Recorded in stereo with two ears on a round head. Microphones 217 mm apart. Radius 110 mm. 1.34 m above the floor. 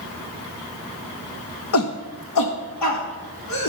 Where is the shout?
60° left (ahead or behind), 1.0 m; by 3.7 s 85° left, 3 m.